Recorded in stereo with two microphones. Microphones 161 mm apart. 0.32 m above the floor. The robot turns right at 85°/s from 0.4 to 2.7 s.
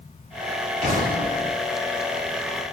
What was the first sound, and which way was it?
An explosion, 135° right.